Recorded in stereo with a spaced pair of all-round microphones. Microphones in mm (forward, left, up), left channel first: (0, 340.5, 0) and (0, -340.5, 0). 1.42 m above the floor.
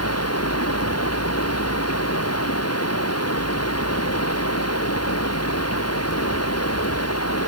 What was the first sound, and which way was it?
Running water, 20° left (ahead or behind).